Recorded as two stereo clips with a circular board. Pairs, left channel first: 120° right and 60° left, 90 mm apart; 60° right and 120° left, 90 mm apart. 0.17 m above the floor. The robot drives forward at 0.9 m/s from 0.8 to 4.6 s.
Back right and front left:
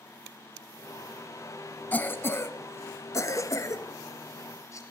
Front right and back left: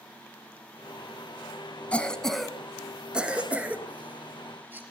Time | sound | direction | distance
1.9 | a cough | 105° right | 1.0 m